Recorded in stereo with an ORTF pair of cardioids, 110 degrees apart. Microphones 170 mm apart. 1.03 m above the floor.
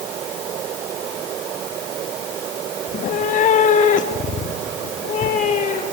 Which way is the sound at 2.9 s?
45° left.